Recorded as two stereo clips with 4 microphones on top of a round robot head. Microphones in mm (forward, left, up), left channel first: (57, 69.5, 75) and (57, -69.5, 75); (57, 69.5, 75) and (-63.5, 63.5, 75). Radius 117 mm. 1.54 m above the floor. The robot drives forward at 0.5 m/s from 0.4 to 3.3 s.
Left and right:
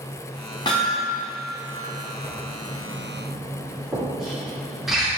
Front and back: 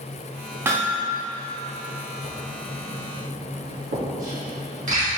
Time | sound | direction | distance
0.7 | hammering | 135° left | 1.0 m
2.2 | writing | straight behind | 1.9 m